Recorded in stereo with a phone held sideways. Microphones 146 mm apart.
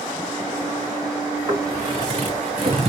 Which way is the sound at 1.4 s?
30° right (ahead or behind).